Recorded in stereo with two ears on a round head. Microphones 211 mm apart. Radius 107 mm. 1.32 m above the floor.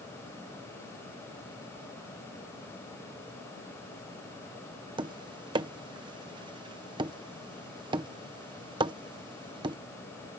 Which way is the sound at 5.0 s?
20° right (ahead or behind).